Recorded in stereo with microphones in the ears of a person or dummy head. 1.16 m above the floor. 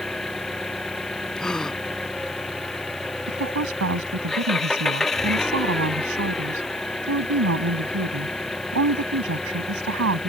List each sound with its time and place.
0.0 s an engine running: centre (ahead or behind)
1.4 s a gasp: 5° left (ahead or behind)
3.3 s a woman speaking: 75° right (ahead or behind)